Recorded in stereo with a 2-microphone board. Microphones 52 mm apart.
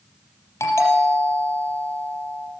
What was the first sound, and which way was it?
A doorbell, 65° left (ahead or behind).